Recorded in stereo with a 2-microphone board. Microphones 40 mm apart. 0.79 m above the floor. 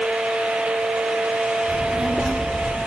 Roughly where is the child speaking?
Centre.